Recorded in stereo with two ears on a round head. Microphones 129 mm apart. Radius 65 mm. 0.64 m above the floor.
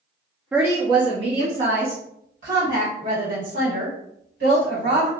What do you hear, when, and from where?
0.5 s a woman speaking: 10° right (ahead or behind), 0.6 m; by 5.1 s 70° right (ahead or behind), 3 m